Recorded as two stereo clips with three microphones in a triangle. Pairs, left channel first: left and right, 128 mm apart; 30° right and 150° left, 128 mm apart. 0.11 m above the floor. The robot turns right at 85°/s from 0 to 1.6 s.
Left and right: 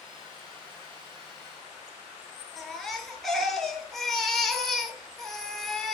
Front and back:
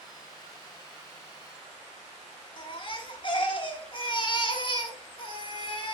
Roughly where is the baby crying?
Ahead.